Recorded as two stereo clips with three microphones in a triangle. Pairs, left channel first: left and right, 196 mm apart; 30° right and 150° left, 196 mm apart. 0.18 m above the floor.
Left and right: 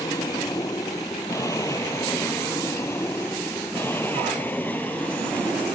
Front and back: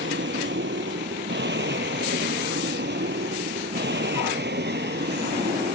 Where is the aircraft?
160° left; by 5.8 s 175° left.